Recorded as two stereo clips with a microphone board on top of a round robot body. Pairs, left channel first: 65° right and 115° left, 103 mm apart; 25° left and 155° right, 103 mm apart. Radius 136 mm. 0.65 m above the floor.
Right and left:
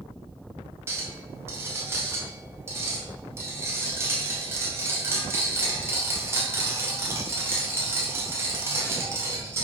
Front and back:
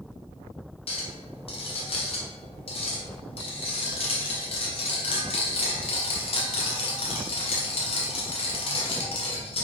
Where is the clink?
45° left, 2.5 m.